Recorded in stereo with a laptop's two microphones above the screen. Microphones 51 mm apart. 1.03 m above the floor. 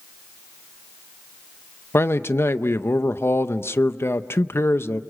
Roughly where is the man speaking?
Left.